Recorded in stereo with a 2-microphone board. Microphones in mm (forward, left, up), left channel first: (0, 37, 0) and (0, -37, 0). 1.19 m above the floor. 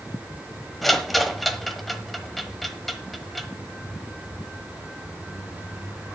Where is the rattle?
Centre (ahead or behind), 1.0 m.